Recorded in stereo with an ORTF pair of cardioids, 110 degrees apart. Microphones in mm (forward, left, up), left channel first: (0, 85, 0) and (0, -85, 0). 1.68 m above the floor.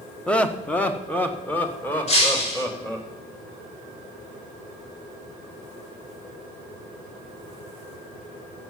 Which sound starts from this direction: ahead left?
Breaking glass, at 2.1 s.